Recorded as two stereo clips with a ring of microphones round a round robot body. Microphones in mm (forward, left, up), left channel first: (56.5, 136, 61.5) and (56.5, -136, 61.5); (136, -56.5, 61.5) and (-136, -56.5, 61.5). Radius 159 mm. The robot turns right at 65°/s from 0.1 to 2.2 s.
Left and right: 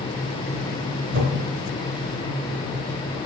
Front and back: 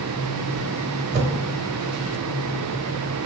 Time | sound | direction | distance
1.1 | a whoosh | 140° right | 1.0 m